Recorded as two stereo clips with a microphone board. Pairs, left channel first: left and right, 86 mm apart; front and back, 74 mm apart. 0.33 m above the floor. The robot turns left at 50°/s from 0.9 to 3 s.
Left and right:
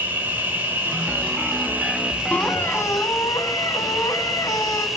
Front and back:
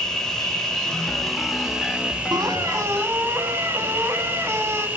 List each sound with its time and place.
0.0 s an insect: 70° right, 1.2 m; by 5.0 s 175° right, 1.2 m
2.3 s a squeak: 165° left, 0.9 m; by 4.9 s 130° left, 0.9 m